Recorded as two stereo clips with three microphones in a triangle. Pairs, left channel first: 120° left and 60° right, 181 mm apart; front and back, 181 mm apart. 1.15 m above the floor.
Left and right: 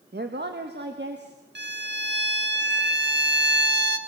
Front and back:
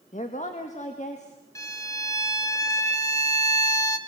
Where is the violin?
70° right, 1.4 m.